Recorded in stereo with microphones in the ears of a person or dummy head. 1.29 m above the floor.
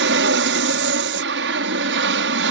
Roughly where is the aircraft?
Right.